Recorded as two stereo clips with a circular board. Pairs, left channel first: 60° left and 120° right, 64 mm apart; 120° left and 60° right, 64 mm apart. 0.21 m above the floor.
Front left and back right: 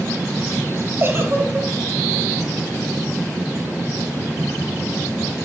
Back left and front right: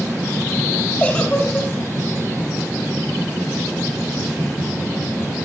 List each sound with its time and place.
1.0 s a giggle: 165° right, 1.9 m